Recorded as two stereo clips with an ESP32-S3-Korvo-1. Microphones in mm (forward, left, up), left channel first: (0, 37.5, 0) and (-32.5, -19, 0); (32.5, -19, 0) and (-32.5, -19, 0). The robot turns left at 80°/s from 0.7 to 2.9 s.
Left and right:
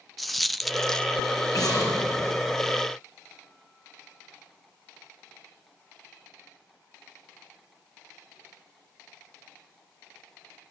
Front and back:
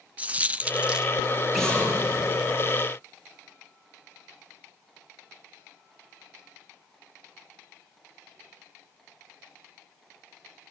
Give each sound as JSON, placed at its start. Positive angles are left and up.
{"t": 0.2, "sound": "a dropped coin", "azimuth_deg": 150, "distance_m": 0.9}
{"t": 1.5, "sound": "an explosion", "azimuth_deg": 90, "distance_m": 6.0}